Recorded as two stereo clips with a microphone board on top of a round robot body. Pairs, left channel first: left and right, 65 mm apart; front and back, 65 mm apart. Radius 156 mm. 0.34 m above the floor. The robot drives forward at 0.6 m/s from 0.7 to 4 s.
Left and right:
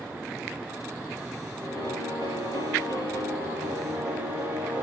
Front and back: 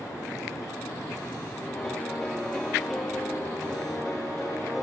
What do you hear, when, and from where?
1.6 s a piano: 85° right, 9.5 m; by 4.8 s 95° right, 9.5 m